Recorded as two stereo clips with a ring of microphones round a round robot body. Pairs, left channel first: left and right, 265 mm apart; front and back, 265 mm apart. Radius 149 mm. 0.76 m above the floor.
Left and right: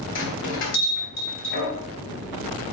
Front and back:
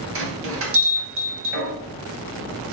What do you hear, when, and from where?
0.1 s a bell: 140° left, 3 m